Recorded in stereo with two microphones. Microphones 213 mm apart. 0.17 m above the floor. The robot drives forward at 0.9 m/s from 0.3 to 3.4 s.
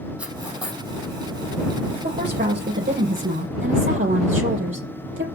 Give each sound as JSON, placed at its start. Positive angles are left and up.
{"t": 0.2, "sound": "cutlery clinking", "side_deg": -5, "distance_m": 3.5}
{"t": 1.9, "sound": "a woman speaking", "side_deg": -45, "distance_m": 3.5}